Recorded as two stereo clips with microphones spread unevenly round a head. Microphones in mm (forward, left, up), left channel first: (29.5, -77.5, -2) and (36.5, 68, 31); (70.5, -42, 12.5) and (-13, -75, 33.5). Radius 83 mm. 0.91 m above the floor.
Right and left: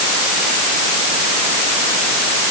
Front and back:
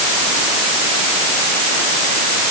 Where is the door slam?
I don't hear a door slam.